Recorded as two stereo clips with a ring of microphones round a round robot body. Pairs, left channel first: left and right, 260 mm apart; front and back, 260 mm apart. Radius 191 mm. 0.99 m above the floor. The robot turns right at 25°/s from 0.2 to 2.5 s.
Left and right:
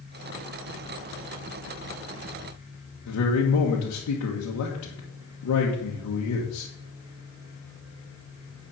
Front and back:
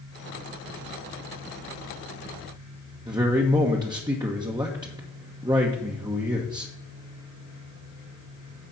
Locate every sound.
3.1 s a man speaking: 105° left, 1.4 m